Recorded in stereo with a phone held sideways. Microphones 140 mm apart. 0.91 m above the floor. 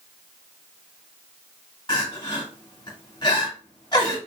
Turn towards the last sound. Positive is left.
turn(degrees=35)  # may be behind; listen again after turning